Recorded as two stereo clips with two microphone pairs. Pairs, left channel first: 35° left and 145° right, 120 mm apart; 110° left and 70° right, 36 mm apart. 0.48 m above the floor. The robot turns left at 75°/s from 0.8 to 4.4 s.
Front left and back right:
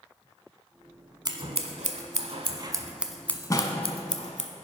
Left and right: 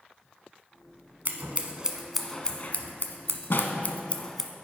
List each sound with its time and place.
1.2 s scissors: 95° right, 0.7 m; by 4.5 s 30° left, 0.7 m